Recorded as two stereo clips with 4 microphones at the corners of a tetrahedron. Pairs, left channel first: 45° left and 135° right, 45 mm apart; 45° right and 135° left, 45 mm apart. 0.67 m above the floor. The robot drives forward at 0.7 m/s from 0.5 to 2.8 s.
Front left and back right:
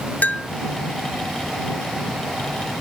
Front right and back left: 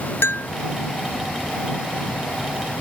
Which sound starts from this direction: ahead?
A bell, at 0.2 s.